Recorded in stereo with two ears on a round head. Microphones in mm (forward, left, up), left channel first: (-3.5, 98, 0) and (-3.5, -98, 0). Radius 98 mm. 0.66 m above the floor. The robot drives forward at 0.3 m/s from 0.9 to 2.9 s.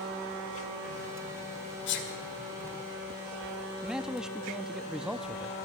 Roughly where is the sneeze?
Left.